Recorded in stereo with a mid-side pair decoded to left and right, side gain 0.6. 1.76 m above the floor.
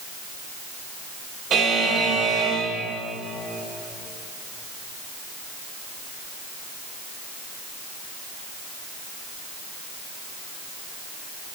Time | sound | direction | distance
1.5 | a buzzer | 50° right | 5 m